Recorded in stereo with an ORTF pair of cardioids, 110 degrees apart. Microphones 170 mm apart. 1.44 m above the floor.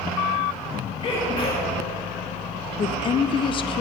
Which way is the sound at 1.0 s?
35° left.